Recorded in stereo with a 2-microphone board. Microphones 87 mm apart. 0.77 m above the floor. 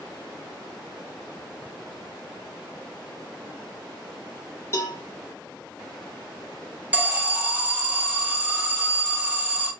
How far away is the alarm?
About 0.6 m.